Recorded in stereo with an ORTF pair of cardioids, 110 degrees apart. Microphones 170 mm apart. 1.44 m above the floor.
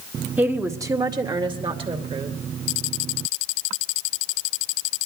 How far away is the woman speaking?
About 1.5 m.